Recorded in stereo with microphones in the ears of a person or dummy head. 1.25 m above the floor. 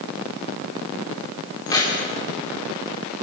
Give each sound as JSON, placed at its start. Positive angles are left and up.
{"t": 1.7, "sound": "keys jangling", "side_deg": 20, "distance_m": 3.0}